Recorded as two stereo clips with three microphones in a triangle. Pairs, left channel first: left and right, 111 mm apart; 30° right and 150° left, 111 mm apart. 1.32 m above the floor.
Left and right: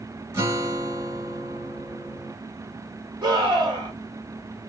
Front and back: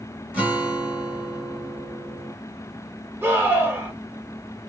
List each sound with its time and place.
0.3 s a guitar: 140° right, 1.3 m
3.2 s a scream: 140° right, 1.7 m